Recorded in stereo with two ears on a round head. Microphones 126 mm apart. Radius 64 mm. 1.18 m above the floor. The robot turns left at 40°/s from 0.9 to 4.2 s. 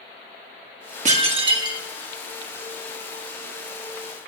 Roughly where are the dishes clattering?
Behind right.